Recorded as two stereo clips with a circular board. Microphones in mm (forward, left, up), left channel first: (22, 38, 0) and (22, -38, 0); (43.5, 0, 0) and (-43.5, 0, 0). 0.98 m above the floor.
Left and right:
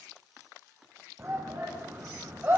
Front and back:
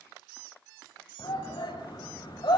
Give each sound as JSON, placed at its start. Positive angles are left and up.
{"t": 1.2, "sound": "a shout", "azimuth_deg": -25, "distance_m": 6.0}